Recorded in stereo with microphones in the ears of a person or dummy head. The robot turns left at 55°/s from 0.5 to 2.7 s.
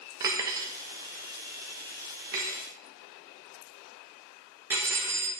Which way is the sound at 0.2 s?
20° right (ahead or behind).